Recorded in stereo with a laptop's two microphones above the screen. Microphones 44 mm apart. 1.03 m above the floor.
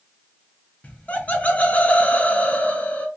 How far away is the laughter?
About 0.5 m.